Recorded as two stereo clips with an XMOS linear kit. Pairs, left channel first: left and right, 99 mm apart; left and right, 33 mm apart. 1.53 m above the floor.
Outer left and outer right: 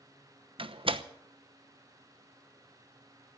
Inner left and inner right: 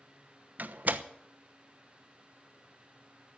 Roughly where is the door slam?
Right.